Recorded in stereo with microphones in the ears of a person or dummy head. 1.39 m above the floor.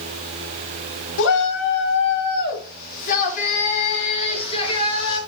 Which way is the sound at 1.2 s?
65° left (ahead or behind).